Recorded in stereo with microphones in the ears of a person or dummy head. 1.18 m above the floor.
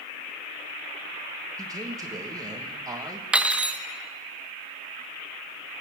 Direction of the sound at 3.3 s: 10° right (ahead or behind).